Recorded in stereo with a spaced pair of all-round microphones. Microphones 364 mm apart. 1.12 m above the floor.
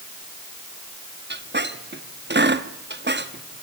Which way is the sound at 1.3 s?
30° right (ahead or behind).